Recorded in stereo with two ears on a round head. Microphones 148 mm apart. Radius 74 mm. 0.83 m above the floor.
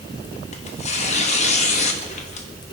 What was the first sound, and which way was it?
Tearing paper, 40° left (ahead or behind).